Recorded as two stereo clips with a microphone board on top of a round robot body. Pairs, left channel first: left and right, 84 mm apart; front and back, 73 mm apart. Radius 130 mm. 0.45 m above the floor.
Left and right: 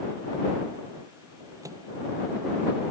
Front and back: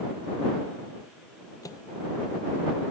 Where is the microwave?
40° right.